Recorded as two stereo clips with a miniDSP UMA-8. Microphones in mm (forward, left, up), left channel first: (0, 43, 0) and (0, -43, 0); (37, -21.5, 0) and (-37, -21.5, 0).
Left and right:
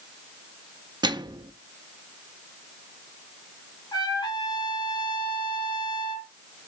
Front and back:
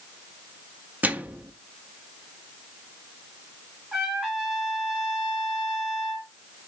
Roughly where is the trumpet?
Left.